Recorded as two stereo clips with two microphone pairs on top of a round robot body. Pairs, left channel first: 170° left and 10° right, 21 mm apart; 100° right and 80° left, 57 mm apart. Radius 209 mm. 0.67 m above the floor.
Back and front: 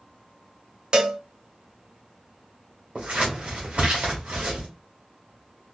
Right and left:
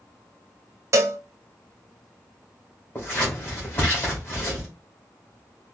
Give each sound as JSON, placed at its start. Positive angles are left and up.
{"t": 0.9, "sound": "a cowbell", "azimuth_deg": 35, "distance_m": 0.5}
{"t": 3.0, "sound": "scissors", "azimuth_deg": -45, "distance_m": 1.5}